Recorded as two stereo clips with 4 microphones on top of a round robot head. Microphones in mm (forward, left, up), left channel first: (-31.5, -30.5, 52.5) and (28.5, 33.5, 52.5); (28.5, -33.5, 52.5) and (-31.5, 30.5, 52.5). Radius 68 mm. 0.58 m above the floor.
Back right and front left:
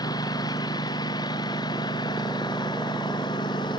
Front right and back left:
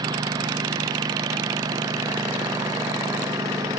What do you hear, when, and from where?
0.0 s a lawn mower: straight behind; by 3.8 s 175° right